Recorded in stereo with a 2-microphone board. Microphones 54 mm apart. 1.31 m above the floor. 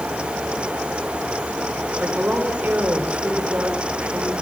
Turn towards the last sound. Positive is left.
turn(degrees=-30)  # may be behind; listen again after turning